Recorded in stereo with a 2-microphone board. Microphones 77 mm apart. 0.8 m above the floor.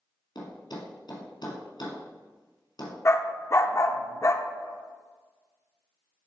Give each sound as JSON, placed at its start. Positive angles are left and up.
{"t": 0.3, "sound": "a thud", "side_deg": 65, "distance_m": 2.5}
{"t": 3.0, "sound": "a dog barking", "side_deg": 40, "distance_m": 0.6}